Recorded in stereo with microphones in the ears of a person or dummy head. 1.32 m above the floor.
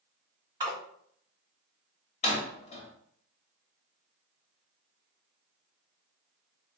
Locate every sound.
0.6 s a splash: 20° right (ahead or behind), 1.8 m
2.2 s a door slam: 40° left (ahead or behind), 1.0 m